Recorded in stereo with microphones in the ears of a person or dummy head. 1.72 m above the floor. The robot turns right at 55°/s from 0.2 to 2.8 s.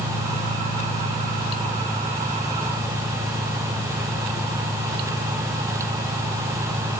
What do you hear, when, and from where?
0.0 s an engine running: 80° left, 1.2 m; by 7.0 s 140° right, 1.2 m